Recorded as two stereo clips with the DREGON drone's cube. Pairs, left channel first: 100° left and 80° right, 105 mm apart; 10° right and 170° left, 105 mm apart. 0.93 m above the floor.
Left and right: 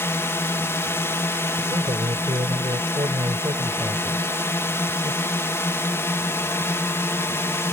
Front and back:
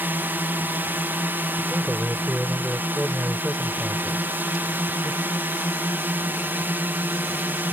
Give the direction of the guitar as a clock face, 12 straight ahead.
No guitar in this recording.